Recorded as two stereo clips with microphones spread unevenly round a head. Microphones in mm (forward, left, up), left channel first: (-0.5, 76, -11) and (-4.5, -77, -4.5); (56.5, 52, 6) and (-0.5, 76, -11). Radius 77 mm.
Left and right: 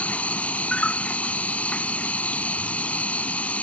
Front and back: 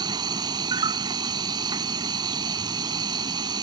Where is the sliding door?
No sliding door in this recording.